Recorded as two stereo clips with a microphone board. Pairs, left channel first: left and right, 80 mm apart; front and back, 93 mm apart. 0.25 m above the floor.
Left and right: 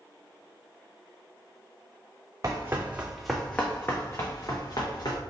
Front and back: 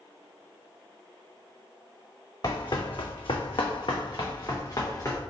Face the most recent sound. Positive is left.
turn(degrees=55)